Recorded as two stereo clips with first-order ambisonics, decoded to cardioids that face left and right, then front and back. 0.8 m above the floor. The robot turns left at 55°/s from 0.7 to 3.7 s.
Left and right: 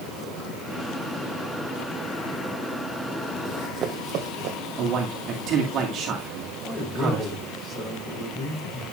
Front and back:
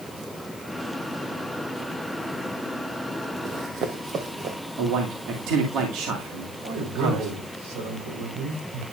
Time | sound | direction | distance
3.5 | running footsteps | 140° right | 1.4 m
4.8 | a man speaking | 145° right | 2 m
6.6 | a man speaking | 160° left | 4.5 m